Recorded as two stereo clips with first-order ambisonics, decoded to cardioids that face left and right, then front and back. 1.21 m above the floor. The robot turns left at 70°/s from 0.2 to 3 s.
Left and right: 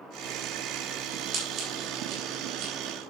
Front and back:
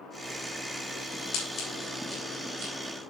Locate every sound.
1.3 s scissors: 30° right, 9.5 m; by 2.7 s 125° right, 9.5 m